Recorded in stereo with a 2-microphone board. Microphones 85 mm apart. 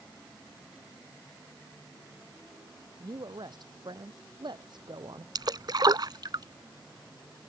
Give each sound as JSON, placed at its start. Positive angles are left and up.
{"t": 3.0, "sound": "a woman speaking", "side_deg": -60}
{"t": 5.3, "sound": "a splash", "side_deg": -55}